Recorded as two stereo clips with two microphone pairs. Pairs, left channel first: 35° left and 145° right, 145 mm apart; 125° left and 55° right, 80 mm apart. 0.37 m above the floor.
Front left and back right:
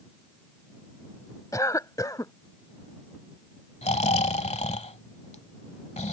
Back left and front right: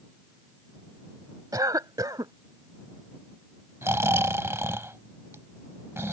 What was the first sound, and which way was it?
A cough, 25° right.